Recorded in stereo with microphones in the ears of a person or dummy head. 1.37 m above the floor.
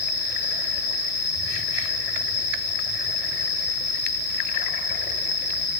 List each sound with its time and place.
0.0 s an insect: 20° left (ahead or behind), 1.2 m